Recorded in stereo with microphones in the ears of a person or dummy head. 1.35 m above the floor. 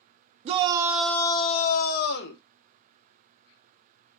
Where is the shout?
35° right (ahead or behind), 0.6 m; by 2.4 s 65° left (ahead or behind), 1.0 m.